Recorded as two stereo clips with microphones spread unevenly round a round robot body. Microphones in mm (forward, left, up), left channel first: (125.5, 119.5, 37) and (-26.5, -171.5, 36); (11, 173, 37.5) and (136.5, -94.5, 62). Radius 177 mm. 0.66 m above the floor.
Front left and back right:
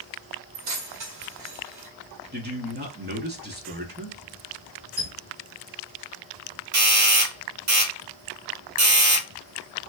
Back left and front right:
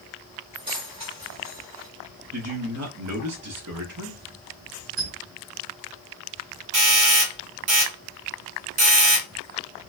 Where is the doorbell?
100° right, 2.5 m.